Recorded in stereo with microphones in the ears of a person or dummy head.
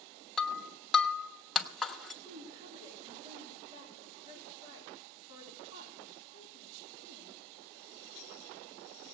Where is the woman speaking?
30° right (ahead or behind), 4 m.